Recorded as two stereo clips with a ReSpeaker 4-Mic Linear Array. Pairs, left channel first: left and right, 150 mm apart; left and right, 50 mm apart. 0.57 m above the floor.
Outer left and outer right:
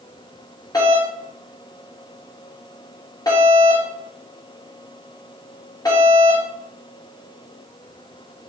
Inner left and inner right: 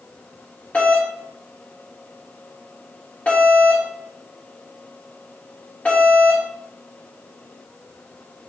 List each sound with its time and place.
0.7 s a doorbell: 25° left (ahead or behind), 2.5 m